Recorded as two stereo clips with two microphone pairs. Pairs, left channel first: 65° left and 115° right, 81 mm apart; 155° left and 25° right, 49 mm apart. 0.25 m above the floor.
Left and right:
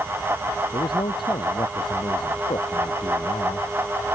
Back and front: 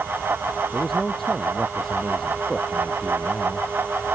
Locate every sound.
0.7 s a man speaking: 70° left